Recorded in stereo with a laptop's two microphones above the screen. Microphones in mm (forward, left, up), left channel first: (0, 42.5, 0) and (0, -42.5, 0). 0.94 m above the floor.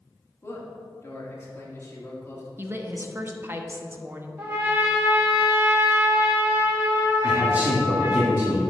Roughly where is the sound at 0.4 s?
Left.